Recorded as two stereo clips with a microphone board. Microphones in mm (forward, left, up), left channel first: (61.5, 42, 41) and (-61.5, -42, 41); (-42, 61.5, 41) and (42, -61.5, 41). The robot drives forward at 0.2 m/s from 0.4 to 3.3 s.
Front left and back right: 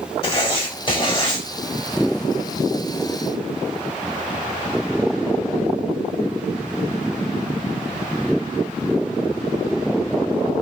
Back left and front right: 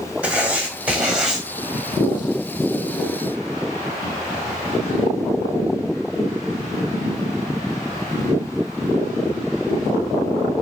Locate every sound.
0.2 s writing: 20° left, 1.5 m; by 1.4 s 25° left, 1.4 m